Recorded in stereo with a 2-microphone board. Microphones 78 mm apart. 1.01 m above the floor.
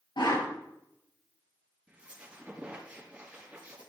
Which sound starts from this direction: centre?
A squeak, at 1.9 s.